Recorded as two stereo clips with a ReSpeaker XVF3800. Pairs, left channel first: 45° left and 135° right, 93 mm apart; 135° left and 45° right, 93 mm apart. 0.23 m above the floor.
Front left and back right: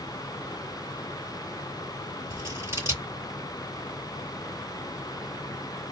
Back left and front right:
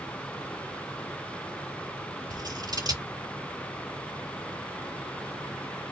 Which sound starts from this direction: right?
Scissors, at 2.3 s.